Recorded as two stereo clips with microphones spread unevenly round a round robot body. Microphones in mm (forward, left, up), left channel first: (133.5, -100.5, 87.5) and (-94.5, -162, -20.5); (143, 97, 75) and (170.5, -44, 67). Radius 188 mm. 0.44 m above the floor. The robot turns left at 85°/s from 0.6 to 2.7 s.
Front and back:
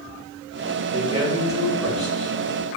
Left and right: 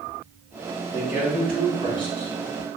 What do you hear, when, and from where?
0.9 s a man speaking: 125° right, 1.7 m; by 2.3 s 115° left, 1.7 m